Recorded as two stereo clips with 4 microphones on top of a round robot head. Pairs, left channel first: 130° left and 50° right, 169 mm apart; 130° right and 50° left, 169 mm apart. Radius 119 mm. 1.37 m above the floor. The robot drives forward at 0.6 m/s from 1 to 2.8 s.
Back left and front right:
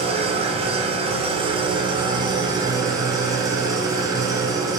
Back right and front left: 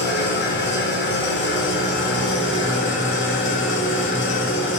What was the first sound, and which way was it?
An engine running, 105° right.